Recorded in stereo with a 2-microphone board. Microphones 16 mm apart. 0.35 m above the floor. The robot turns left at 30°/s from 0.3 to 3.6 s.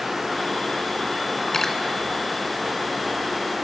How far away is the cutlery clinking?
About 2 m.